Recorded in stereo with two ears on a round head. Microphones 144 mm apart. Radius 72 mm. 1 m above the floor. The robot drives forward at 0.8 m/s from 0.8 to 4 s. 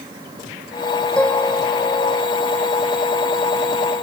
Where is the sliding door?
No sliding door in this recording.